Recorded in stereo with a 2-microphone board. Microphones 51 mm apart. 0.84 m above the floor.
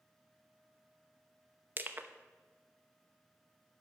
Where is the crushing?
40° right (ahead or behind), 0.9 m.